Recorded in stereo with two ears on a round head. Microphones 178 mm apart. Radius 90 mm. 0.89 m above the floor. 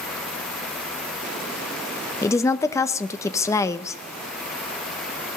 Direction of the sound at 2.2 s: 15° left (ahead or behind).